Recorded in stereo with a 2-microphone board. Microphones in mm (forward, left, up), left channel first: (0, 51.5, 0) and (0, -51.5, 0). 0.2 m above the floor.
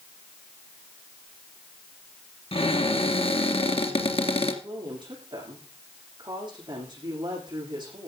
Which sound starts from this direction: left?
A cupboard door, at 2.5 s.